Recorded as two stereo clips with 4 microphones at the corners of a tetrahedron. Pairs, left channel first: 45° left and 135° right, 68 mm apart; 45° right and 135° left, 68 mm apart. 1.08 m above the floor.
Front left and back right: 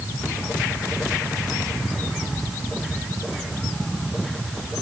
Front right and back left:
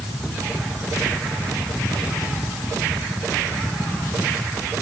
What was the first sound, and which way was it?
Only background noise.